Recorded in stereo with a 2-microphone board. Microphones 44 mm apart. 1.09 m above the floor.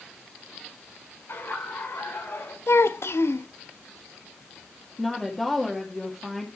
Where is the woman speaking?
5° left (ahead or behind), 1.9 m.